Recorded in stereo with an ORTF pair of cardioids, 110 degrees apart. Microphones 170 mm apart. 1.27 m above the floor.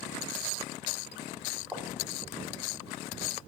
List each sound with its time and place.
1.7 s footsteps: 5° right, 4.5 m